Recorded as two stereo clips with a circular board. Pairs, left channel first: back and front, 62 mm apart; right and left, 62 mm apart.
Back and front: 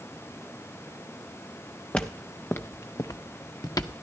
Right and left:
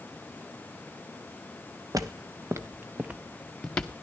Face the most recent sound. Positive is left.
turn(degrees=-155)